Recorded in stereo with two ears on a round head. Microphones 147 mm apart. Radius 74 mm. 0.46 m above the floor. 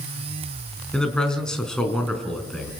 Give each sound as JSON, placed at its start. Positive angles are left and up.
{"t": 0.9, "sound": "a man speaking", "side_deg": 5, "distance_m": 4.5}